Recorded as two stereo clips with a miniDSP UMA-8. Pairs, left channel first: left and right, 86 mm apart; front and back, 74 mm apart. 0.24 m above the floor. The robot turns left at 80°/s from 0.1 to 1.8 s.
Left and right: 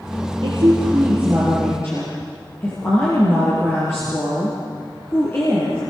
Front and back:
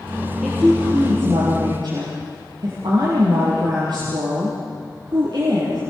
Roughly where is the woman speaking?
Right.